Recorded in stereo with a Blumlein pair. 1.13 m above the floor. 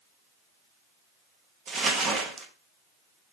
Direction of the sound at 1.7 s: 25° right.